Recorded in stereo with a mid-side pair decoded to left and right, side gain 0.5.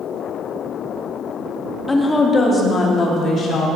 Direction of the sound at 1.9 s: 15° left.